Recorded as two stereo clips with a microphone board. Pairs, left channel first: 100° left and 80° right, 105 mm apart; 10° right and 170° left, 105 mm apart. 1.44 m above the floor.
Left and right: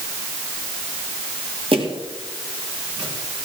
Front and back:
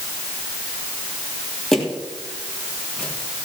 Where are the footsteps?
95° right, 3.5 m; by 3.4 s 80° right, 4 m.